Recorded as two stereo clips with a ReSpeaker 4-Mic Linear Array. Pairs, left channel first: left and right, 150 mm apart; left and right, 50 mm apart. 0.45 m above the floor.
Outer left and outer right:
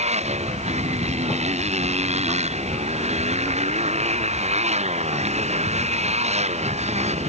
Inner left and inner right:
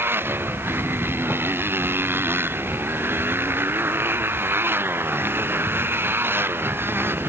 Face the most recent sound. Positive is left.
turn(degrees=-50)  # may be behind; listen again after turning